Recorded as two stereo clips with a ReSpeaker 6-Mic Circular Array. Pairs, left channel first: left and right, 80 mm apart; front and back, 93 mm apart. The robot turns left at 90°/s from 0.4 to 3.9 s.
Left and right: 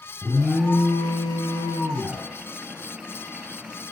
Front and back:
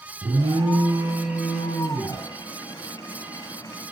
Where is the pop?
No pop in this recording.